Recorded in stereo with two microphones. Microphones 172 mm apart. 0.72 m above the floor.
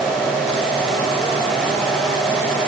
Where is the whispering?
I don't hear whispering.